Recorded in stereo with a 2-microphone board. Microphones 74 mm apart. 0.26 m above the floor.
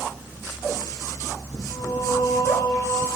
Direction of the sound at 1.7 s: 60° left (ahead or behind).